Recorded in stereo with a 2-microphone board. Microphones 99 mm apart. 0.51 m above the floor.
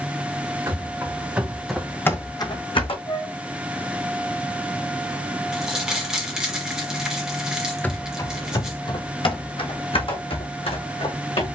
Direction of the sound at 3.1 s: 55° left (ahead or behind).